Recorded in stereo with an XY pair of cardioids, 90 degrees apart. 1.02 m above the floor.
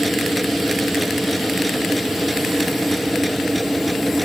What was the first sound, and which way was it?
A machine running, 5° right.